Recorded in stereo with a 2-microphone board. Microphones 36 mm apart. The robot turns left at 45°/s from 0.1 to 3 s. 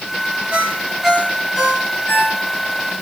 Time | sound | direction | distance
0.5 | a ringtone | 135° right | 2.5 m